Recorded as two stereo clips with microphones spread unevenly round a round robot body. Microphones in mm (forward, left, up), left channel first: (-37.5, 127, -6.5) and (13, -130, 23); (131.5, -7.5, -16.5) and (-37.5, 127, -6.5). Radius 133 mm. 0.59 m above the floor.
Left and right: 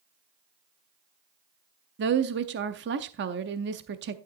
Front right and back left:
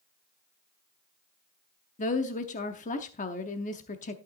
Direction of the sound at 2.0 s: 55° right.